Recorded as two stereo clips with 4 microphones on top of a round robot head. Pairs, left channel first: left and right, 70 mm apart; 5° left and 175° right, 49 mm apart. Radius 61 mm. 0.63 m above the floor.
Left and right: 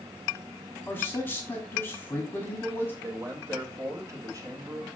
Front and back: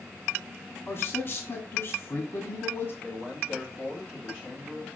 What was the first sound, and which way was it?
A man speaking, 30° left.